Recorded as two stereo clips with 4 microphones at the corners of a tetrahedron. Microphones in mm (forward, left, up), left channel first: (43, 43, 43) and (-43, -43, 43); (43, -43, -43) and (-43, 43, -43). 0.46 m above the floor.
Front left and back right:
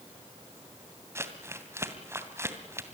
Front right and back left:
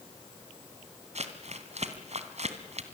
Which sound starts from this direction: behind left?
Crumpling, at 1.1 s.